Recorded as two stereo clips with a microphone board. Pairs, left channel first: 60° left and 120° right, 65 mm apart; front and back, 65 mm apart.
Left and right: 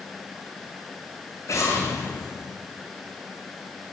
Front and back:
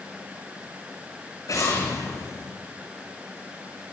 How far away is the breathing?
No breathing in this recording.